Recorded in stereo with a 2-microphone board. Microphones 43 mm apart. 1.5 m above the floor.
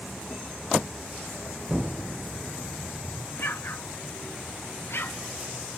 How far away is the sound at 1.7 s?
About 0.7 m.